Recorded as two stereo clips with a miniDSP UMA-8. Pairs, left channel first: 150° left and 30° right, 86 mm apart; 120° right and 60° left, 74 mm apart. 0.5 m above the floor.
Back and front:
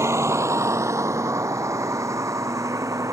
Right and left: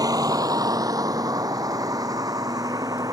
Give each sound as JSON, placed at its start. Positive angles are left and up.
{"t": 0.0, "sound": "a vehicle", "azimuth_deg": 25}